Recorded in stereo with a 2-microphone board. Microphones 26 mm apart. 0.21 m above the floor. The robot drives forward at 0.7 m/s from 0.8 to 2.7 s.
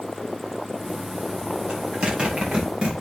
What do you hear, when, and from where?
1.7 s a zipper: 45° right (ahead or behind), 5.5 m; by 2.9 s 40° right (ahead or behind), 6 m